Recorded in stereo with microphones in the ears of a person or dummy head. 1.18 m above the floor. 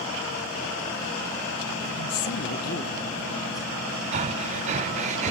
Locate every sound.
2.0 s a woman speaking: 75° left (ahead or behind), 0.8 m; by 4.0 s 10° left (ahead or behind), 2 m
4.1 s breathing: 40° right (ahead or behind), 0.6 m